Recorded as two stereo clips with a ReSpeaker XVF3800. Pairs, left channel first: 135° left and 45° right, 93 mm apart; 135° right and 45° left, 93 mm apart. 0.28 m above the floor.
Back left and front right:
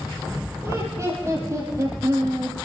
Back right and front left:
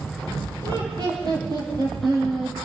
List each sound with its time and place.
0.6 s laughter: 15° left, 6 m; by 2.5 s straight ahead, 8 m